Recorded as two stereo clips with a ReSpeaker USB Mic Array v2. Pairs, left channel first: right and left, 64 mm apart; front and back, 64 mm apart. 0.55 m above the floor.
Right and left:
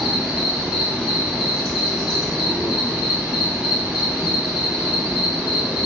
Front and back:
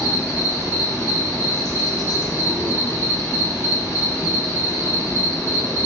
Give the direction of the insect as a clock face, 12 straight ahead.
12 o'clock.